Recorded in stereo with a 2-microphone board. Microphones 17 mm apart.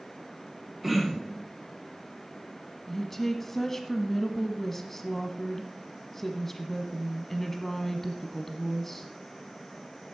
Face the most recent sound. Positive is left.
turn(degrees=20)  # may be behind; listen again after turning